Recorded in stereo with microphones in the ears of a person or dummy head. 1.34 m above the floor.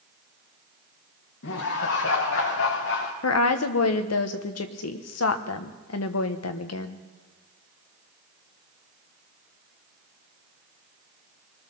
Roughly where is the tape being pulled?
I don't hear tape being pulled.